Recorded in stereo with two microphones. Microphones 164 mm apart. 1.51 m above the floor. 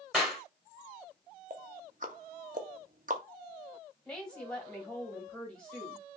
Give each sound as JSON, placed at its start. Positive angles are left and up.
{"t": 0.1, "sound": "a clap", "side_deg": 0, "distance_m": 2.5}
{"t": 1.5, "sound": "ticking", "side_deg": -55, "distance_m": 0.7}
{"t": 4.0, "sound": "a woman speaking", "side_deg": 5, "distance_m": 1.8}